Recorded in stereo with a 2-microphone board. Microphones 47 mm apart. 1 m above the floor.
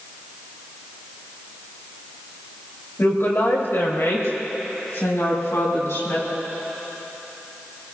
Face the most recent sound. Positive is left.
turn(degrees=85)